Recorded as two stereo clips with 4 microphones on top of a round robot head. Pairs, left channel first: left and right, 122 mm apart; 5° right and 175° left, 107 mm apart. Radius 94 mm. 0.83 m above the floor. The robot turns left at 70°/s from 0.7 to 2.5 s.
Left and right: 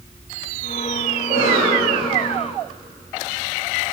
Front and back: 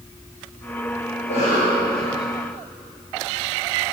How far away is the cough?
About 3.5 m.